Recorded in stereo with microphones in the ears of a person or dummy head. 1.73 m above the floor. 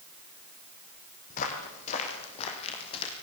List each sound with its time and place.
1.3 s footsteps: 45° left (ahead or behind), 4.5 m; by 3.1 s 35° left (ahead or behind), 4.5 m